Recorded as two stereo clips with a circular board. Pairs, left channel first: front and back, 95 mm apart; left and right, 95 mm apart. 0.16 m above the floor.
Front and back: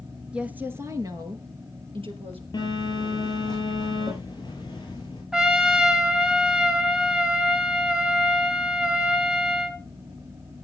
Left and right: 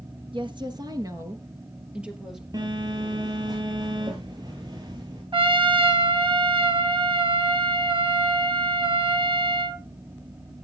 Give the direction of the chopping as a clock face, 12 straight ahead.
No chopping in this recording.